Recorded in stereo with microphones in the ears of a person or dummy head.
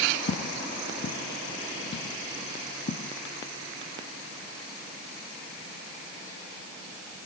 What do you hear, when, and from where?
0.3 s footsteps: 55° left (ahead or behind); by 3.1 s 50° left (ahead or behind)